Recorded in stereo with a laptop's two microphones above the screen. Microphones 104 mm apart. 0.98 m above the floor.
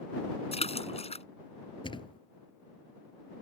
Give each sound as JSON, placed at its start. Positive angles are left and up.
{"t": 0.5, "sound": "a splash", "side_deg": 85}
{"t": 1.8, "sound": "a thud", "side_deg": 55}